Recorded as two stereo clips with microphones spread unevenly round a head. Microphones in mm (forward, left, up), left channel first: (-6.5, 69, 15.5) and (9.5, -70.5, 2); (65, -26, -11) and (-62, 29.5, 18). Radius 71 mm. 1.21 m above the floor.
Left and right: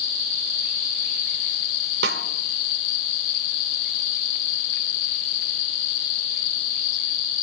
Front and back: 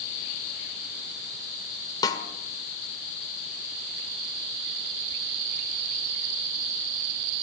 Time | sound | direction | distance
2.0 | a snare drum | 95° right | 1.6 m